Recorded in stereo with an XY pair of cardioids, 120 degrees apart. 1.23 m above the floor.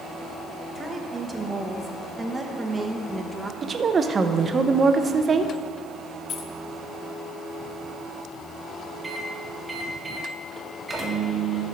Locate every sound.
0.8 s a woman speaking: 15° right, 1.3 m
3.6 s a woman speaking: 30° right, 0.7 m
6.3 s keys jangling: 60° left, 0.6 m
9.0 s a microwave: 10° right, 1.7 m